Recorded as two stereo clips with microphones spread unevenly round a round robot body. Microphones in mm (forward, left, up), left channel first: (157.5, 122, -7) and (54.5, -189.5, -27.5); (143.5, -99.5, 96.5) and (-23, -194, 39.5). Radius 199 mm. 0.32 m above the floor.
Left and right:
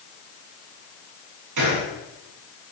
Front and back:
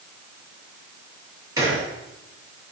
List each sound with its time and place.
1.6 s a gunshot: 80° right, 8.5 m